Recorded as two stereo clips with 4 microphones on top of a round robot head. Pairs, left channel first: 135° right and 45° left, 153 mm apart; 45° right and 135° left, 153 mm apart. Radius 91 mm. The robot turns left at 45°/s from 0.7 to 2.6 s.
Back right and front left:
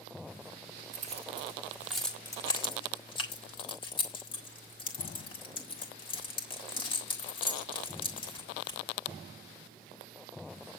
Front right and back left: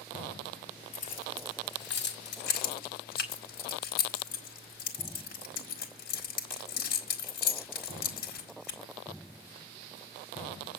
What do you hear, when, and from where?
0.9 s keys jangling: straight ahead, 4 m; by 8.8 s 75° right, 4 m